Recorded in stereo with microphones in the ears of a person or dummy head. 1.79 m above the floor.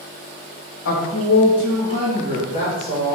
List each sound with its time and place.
0.8 s a woman speaking: 70° left (ahead or behind), 1.9 m; by 3.2 s 35° left (ahead or behind), 3.5 m